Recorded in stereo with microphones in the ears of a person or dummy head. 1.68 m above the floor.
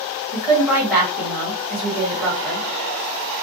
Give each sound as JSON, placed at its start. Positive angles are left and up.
{"t": 0.3, "sound": "a woman speaking", "side_deg": -10, "distance_m": 1.5}